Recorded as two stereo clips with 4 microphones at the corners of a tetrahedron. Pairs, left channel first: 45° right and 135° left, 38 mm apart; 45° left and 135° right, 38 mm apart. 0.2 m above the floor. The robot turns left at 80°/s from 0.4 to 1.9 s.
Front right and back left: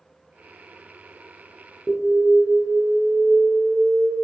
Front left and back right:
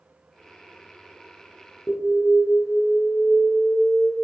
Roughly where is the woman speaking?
No woman speaking in this recording.